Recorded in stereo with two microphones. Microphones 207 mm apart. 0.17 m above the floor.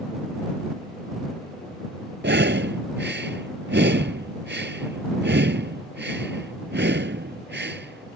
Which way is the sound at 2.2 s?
60° right (ahead or behind).